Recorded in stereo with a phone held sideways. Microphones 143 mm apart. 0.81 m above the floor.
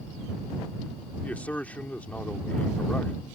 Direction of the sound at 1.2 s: 10° left (ahead or behind).